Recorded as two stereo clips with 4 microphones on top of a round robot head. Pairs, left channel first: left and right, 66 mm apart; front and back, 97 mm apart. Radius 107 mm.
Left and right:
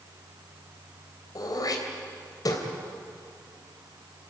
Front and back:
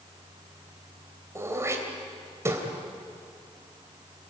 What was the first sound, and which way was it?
Throat clearing, 115° left.